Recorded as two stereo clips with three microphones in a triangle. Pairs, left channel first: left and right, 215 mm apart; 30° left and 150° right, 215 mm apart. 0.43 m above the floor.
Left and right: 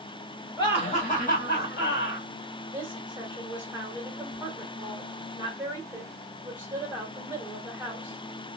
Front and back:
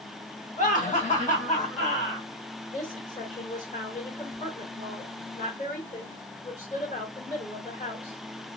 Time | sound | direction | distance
0.6 | laughter | 35° left | 1.0 m
2.7 | a woman speaking | 15° right | 1.8 m